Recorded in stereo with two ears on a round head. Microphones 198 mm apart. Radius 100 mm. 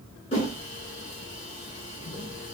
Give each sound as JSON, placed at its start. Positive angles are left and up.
{"t": 0.3, "sound": "a whoosh", "side_deg": 25, "distance_m": 2.5}